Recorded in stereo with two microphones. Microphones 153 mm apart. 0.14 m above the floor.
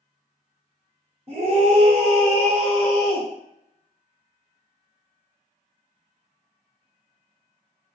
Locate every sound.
1.3 s a scream: 45° right (ahead or behind), 1.4 m